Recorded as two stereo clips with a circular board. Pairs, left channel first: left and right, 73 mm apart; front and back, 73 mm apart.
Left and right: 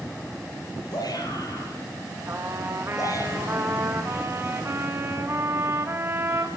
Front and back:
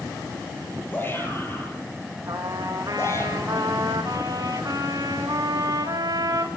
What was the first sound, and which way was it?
A shout, 60° left.